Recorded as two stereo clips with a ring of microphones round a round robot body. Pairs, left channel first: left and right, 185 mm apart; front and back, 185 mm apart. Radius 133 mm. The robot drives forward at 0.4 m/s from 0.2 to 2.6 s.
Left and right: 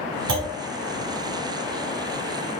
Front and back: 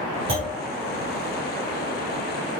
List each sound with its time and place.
0.3 s a clunk: 115° right, 1.7 m